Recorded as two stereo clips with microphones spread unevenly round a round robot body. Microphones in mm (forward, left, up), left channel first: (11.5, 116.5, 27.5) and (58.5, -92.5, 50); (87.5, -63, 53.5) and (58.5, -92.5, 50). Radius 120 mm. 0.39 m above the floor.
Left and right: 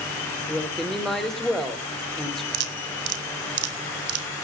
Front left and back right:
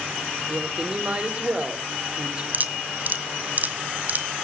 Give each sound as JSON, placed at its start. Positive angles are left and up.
{"t": 0.5, "sound": "a woman speaking", "azimuth_deg": -175, "distance_m": 1.7}
{"t": 2.5, "sound": "dripping", "azimuth_deg": -95, "distance_m": 1.6}